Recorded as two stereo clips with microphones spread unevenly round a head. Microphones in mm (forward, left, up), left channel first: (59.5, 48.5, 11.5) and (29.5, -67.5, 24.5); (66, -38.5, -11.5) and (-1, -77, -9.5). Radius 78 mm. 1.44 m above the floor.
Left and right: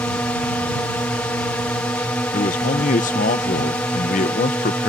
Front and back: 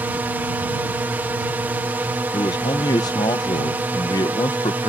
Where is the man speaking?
75° left.